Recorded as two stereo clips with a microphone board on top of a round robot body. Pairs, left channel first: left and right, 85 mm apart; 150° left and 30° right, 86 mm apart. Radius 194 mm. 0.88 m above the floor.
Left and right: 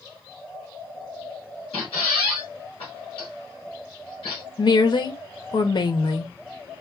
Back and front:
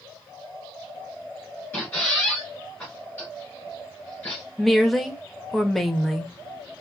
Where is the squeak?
75° left, 1.4 m.